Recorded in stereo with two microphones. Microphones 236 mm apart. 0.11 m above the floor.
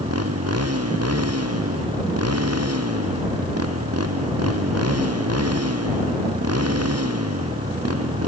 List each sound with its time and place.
0.0 s a motorcycle: 75° right (ahead or behind)